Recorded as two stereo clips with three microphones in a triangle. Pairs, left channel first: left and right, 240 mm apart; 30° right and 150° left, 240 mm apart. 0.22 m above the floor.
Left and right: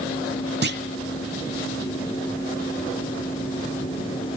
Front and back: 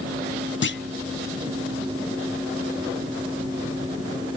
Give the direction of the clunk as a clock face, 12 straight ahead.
2 o'clock.